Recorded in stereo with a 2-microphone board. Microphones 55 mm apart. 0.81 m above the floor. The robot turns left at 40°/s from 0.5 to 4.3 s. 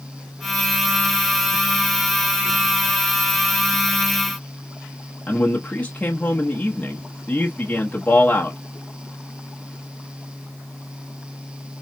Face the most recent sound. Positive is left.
turn(degrees=25)  # may be behind; listen again after turning